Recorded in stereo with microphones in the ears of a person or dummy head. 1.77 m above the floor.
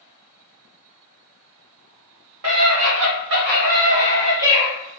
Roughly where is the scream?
Right.